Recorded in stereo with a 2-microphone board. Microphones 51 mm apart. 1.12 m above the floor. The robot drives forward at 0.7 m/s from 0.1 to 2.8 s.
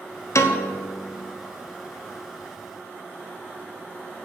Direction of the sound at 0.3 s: 65° left (ahead or behind).